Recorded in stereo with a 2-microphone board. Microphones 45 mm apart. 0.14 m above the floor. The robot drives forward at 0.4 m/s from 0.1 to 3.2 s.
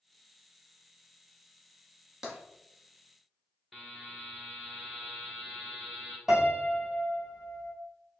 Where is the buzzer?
5° left (ahead or behind), 1.1 m.